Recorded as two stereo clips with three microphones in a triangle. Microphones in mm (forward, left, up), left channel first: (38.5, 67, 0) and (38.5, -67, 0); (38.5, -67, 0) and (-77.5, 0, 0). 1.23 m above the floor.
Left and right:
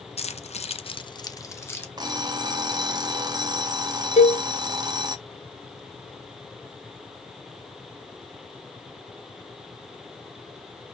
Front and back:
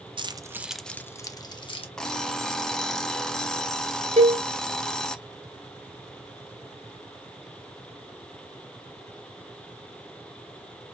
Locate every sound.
0.2 s keys jangling: 110° left, 0.5 m; by 1.9 s 15° left, 0.9 m
2.0 s an alarm clock: 110° right, 0.6 m
4.2 s a cowbell: 115° left, 0.7 m